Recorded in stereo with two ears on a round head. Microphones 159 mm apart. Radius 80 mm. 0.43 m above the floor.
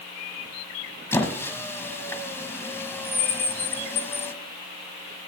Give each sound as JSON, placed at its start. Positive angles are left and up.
{"t": 1.1, "sound": "a squeak", "side_deg": 15, "distance_m": 1.5}